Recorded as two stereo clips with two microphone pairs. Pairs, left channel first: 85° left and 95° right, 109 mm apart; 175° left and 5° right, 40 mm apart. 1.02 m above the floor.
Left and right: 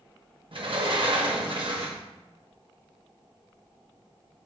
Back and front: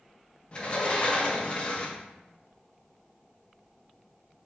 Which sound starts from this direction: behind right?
A sliding door, at 0.5 s.